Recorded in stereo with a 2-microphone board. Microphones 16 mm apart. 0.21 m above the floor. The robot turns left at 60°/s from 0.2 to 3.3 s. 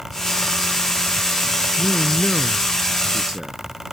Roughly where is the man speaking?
Ahead left.